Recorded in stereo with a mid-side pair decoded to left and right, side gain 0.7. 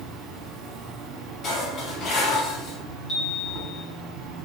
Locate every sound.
0.0 s an insect: 65° right, 1.1 m
1.4 s dishes clattering: 45° left, 1.9 m
3.1 s a chime: 40° left, 1.4 m